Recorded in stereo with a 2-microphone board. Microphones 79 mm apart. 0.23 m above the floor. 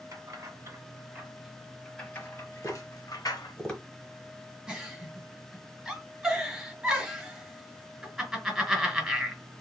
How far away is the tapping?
About 1.2 m.